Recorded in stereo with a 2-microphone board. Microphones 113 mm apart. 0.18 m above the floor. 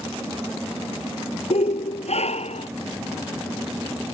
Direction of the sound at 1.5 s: 70° left (ahead or behind).